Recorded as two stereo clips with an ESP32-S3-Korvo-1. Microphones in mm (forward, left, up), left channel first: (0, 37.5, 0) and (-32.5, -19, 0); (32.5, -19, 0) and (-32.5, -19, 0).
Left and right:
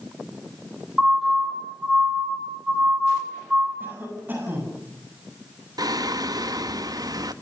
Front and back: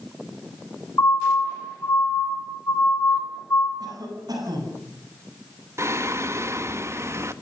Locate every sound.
1.0 s a siren: 35° right, 7.5 m; by 3.7 s 50° right, 4.5 m
3.8 s a cough: straight behind, 9 m
5.8 s singing: 135° right, 1.4 m